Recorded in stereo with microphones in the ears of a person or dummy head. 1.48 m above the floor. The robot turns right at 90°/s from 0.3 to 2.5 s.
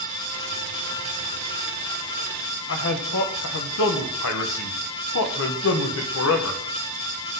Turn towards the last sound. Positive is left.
turn(degrees=70)  # may be behind; listen again after turning